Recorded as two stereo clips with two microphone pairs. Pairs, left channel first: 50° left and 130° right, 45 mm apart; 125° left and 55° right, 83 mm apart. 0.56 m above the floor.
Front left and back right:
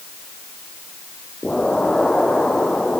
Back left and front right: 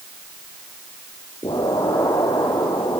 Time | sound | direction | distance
1.4 | an explosion | 125° left | 5 m